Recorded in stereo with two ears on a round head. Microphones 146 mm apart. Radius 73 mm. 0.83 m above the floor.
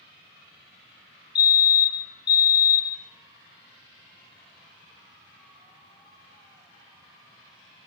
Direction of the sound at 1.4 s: 25° left (ahead or behind).